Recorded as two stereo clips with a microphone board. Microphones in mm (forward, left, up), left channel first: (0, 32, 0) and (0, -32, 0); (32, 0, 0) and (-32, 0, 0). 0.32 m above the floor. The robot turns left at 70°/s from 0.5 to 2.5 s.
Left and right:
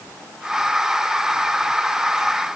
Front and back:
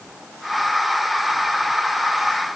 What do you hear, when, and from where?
Only background noise.